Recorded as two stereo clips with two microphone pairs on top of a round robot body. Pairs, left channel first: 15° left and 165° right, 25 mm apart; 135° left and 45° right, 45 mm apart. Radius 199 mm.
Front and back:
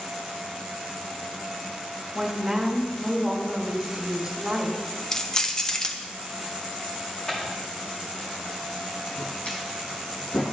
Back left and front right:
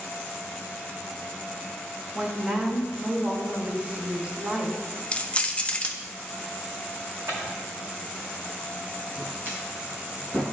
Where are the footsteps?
50° right, 2.5 m; by 10.4 s 20° left, 1.7 m.